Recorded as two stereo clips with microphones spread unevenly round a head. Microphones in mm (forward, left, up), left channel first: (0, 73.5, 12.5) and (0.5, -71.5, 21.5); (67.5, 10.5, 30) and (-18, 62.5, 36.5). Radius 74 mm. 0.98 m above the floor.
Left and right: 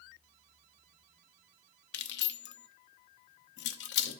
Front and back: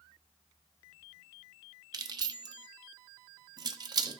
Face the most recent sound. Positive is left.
turn(degrees=100)